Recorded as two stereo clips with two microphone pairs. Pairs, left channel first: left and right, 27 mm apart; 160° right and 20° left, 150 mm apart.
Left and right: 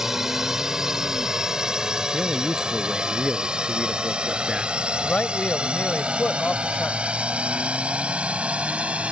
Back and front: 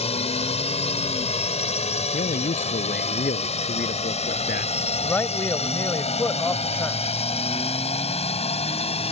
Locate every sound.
0.0 s a drone: 155° right; by 9.1 s 120° right
2.1 s a man speaking: 150° right
5.0 s a man speaking: 120° left